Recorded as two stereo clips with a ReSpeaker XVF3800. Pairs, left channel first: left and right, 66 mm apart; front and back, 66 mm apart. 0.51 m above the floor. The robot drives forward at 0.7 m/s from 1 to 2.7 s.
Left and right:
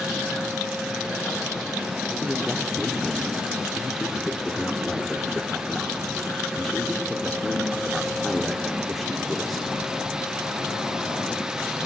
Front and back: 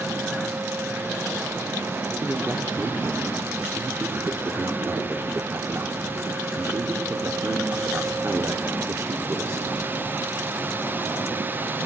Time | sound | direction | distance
2.2 | a man speaking | 175° left | 0.8 m